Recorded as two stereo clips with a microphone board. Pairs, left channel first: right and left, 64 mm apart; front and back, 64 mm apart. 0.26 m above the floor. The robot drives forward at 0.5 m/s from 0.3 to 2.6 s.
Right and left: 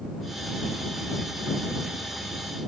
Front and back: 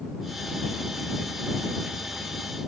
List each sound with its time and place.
Only background noise.